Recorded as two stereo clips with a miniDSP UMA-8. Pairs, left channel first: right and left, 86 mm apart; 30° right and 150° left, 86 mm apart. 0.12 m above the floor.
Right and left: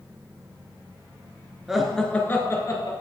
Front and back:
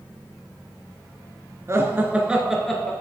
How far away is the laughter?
About 1.4 m.